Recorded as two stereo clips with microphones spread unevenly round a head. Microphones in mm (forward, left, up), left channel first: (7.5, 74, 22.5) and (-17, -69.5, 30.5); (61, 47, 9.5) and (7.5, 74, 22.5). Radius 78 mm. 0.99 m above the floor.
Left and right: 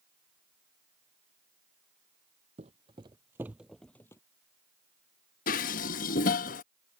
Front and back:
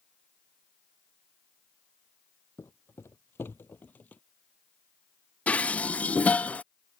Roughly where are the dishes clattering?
Ahead left.